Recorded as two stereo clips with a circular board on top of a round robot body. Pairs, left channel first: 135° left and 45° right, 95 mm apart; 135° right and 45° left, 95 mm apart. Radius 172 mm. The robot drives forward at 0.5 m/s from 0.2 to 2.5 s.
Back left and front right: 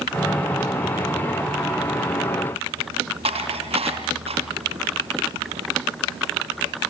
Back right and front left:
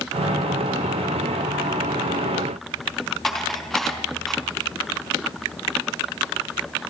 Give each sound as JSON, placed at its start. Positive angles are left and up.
{"t": 3.2, "sound": "dishes clattering", "azimuth_deg": -45, "distance_m": 4.0}